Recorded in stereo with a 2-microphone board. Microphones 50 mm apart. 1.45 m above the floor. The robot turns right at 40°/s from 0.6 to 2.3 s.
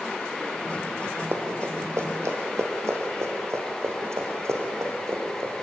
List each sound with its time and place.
1.3 s running footsteps: 55° right (ahead or behind), 3.5 m; by 5.5 s 70° right (ahead or behind), 5.5 m